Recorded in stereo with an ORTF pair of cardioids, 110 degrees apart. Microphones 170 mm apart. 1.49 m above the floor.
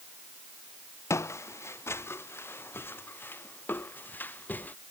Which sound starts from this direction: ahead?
Footsteps, at 1.1 s.